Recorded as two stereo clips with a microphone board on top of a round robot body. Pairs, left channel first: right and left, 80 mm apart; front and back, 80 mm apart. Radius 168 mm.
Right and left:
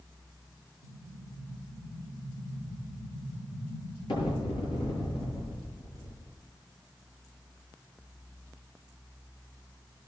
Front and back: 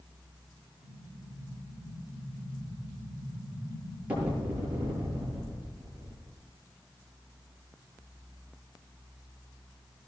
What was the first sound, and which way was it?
An explosion, 105° right.